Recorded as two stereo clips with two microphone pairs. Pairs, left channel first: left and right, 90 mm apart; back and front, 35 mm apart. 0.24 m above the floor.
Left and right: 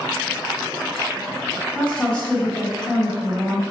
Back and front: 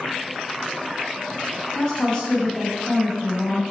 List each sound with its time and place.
1.8 s a woman speaking: 150° left, 1.1 m